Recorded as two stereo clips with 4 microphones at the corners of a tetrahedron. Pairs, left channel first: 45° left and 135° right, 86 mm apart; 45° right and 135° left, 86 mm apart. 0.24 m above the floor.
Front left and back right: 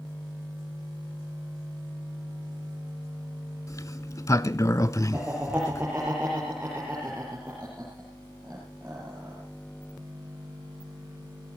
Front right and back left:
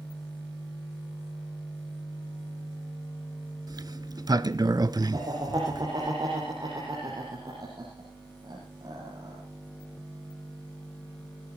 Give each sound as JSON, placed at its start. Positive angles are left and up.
{"t": 3.7, "sound": "a sliding door", "azimuth_deg": 95, "distance_m": 0.6}
{"t": 5.1, "sound": "laughter", "azimuth_deg": 155, "distance_m": 6.5}